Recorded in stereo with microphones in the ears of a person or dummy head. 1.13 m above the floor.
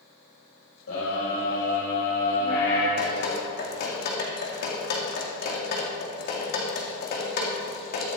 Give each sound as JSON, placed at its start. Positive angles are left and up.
{"t": 0.9, "sound": "a scream", "side_deg": 85, "distance_m": 4.0}
{"t": 3.0, "sound": "dripping", "side_deg": 55, "distance_m": 2.5}